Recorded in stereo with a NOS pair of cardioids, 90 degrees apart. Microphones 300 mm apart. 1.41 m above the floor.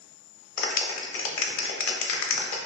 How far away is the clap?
About 0.7 m.